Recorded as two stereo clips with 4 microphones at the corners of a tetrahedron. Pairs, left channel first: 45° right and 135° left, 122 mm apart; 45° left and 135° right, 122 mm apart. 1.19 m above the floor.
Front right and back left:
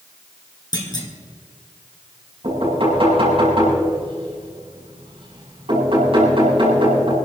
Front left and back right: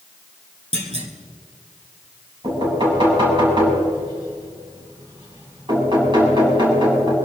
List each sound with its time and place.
0.7 s a clunk: 100° right, 2 m
2.4 s knocking: 175° left, 7.5 m